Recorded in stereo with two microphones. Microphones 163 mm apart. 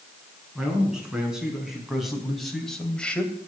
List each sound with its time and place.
0.6 s a man speaking: 5° right (ahead or behind), 6.5 m; by 3.3 s 10° left (ahead or behind), 2.5 m